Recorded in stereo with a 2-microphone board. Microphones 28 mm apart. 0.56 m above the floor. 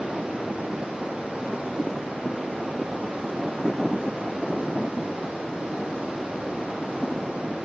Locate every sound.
0.0 s running water: 55° right (ahead or behind), 8.5 m